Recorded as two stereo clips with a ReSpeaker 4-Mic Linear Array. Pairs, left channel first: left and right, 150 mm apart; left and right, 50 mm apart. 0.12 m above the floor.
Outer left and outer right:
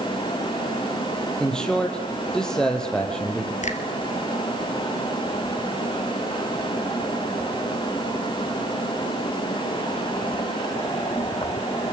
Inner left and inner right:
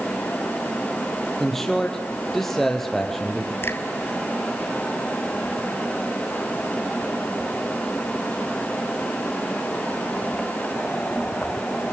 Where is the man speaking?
5° left (ahead or behind), 4.5 m.